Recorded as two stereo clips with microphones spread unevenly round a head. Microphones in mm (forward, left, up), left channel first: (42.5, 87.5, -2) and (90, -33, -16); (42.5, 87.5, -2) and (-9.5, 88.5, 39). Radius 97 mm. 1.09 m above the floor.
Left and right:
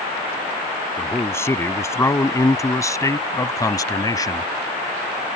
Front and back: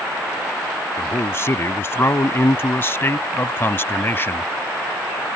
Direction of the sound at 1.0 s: 40° left.